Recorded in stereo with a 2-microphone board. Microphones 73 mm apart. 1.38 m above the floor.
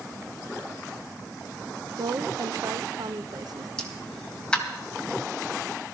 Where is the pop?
10° left (ahead or behind), 2.5 m.